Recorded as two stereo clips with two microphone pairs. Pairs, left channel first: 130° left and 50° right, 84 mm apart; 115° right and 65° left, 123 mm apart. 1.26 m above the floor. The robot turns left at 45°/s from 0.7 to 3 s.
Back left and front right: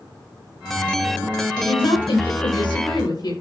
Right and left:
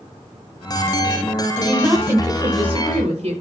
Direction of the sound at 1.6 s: 160° left.